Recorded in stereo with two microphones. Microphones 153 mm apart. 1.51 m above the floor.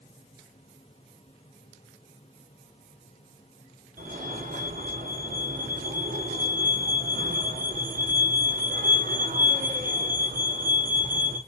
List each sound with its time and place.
4.0 s a fire alarm: 75° right (ahead or behind), 5.5 m